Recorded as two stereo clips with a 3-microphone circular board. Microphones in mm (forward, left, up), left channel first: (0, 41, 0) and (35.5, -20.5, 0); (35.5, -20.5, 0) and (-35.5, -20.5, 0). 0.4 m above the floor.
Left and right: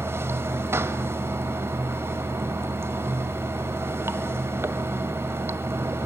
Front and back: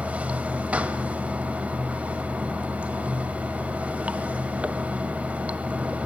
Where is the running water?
110° right, 1.4 m.